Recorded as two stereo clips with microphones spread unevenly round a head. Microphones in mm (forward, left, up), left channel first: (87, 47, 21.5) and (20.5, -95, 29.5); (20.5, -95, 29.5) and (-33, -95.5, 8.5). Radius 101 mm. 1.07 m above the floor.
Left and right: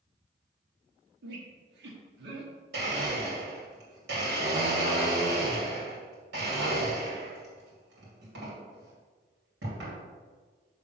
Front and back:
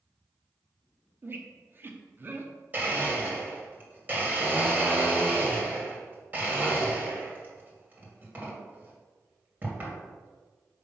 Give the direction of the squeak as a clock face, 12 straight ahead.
4 o'clock.